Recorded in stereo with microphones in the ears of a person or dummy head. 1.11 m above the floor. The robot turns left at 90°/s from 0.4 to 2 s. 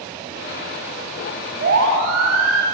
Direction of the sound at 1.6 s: 55° right (ahead or behind).